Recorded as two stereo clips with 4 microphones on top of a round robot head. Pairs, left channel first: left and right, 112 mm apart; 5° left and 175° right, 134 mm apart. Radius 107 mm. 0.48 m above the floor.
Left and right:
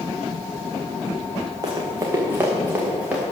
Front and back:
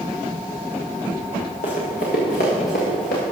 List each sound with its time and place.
1.6 s running footsteps: 35° right, 2.5 m; by 3.2 s 10° right, 3.5 m